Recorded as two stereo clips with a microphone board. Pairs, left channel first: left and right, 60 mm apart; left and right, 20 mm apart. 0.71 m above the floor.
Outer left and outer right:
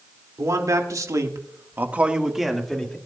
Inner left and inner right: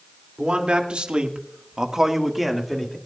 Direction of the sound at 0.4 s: 65° right (ahead or behind).